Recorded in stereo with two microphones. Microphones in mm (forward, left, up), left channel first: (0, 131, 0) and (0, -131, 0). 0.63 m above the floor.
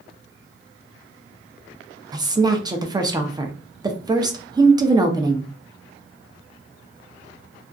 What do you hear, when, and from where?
2.1 s a woman speaking: 15° right (ahead or behind), 0.6 m